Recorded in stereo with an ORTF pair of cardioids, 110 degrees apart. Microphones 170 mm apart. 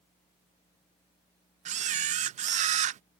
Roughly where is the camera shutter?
Ahead right.